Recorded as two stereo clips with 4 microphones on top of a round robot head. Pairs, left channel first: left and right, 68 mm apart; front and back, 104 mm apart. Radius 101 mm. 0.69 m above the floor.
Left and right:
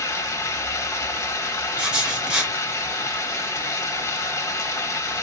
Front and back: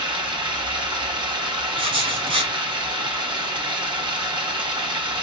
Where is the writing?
160° right, 1.9 m.